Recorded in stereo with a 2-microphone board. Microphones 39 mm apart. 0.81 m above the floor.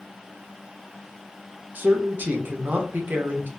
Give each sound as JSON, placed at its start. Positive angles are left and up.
{"t": 1.8, "sound": "a man speaking", "side_deg": -55, "distance_m": 0.8}